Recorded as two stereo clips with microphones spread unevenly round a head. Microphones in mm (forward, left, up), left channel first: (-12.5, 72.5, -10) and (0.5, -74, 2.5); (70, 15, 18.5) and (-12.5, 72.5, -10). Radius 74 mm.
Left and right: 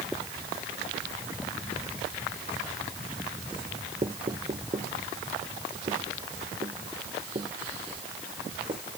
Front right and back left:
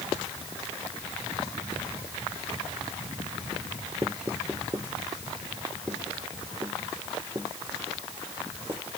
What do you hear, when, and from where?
4.0 s knocking: 145° right